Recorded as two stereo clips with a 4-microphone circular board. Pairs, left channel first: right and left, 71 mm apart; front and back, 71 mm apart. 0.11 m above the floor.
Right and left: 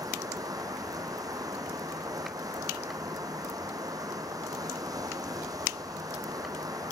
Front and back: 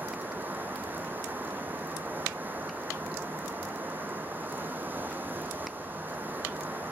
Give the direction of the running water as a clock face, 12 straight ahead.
8 o'clock.